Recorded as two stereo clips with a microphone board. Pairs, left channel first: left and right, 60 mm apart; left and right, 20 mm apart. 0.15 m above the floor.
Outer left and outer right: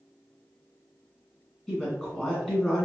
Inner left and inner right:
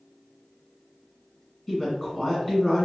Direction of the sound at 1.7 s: 5° left (ahead or behind).